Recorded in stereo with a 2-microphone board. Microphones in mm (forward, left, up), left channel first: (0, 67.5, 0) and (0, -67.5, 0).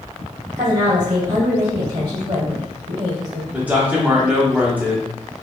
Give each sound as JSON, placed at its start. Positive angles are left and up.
{"t": 0.6, "sound": "a woman speaking", "side_deg": -35, "distance_m": 1.7}
{"t": 3.5, "sound": "a man speaking", "side_deg": -10, "distance_m": 0.7}